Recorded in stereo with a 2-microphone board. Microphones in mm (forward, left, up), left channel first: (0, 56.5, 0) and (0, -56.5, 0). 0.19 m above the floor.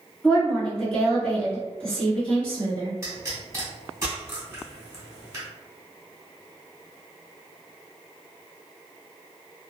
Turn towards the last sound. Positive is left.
turn(degrees=-30)  # may be behind; listen again after turning